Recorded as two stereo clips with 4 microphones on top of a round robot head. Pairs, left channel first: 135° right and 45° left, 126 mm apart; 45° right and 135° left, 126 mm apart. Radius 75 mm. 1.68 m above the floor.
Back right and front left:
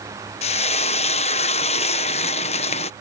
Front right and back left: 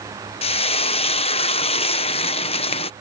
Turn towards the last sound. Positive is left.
turn(degrees=-90)